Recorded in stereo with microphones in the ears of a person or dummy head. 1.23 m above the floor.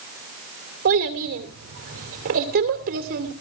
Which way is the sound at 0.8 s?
45° right (ahead or behind).